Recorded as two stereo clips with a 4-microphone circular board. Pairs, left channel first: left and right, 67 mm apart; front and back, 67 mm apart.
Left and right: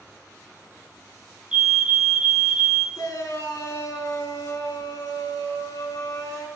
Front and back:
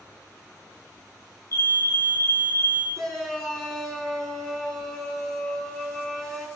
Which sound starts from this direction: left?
A shout, at 3.0 s.